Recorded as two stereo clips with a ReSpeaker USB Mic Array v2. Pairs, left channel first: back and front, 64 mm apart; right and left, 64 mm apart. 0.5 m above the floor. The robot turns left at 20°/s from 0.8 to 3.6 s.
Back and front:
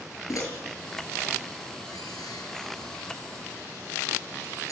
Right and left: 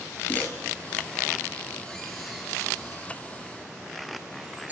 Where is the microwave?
150° right, 7.5 m; by 4.7 s 155° left, 7.5 m.